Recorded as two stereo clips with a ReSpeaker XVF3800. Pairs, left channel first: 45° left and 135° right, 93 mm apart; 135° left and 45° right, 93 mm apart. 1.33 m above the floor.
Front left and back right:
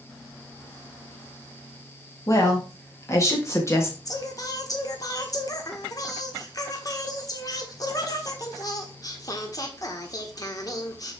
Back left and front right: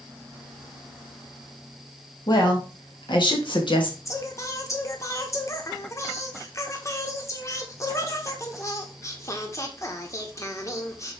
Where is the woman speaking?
100° left, 2.5 m; by 4.0 s 105° left, 1.7 m.